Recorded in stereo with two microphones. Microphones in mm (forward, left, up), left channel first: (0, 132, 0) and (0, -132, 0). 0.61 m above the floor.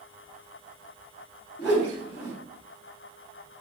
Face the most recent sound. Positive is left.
turn(degrees=45)  # may be behind; listen again after turning